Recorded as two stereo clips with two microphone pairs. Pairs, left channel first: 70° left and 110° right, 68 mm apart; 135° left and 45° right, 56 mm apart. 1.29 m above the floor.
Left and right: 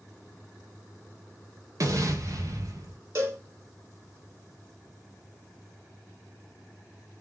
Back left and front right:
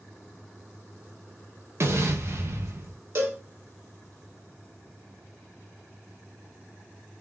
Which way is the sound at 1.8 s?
75° right.